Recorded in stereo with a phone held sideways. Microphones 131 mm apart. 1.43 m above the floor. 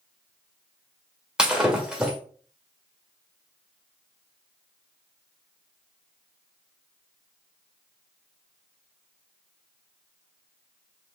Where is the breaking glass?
5° right (ahead or behind), 1.1 m.